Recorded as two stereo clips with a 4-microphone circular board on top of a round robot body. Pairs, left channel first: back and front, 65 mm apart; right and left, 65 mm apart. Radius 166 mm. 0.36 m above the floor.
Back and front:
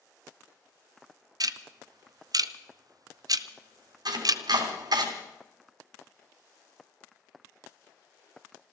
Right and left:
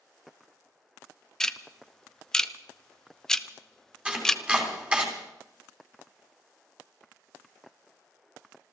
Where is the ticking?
10° right, 0.7 m.